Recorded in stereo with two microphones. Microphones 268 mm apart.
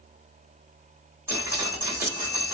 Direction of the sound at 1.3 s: 10° right (ahead or behind).